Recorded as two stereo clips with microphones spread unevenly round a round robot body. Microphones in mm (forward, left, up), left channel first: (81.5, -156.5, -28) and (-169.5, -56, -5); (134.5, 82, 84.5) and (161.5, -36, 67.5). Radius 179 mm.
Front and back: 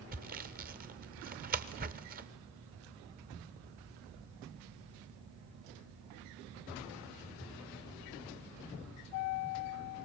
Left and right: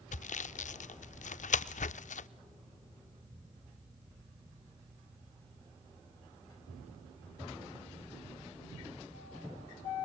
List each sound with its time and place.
0.1 s sawing: 90° left, 0.6 m